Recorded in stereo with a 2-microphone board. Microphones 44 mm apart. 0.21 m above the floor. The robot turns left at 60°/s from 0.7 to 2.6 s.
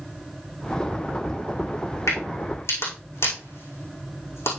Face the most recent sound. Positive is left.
turn(degrees=70)  # may be behind; listen again after turning